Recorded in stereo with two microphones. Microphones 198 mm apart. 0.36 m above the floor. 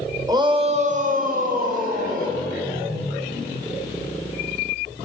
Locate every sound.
0.3 s a shout: 20° right (ahead or behind), 1.4 m; by 2.4 s 45° right (ahead or behind), 3.5 m